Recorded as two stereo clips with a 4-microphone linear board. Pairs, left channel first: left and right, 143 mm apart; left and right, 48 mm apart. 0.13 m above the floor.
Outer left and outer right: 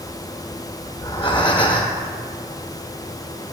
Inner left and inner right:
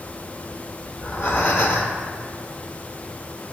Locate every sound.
0.9 s breathing: 35° left (ahead or behind), 0.8 m